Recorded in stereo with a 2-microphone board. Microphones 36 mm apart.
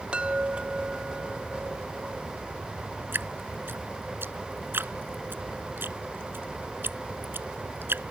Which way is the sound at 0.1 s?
30° right (ahead or behind).